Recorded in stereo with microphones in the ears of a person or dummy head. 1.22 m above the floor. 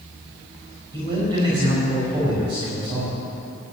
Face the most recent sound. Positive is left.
turn(degrees=-35)  # may be behind; listen again after turning